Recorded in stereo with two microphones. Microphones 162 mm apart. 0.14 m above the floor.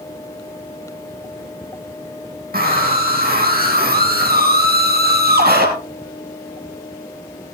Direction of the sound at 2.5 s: 65° right (ahead or behind).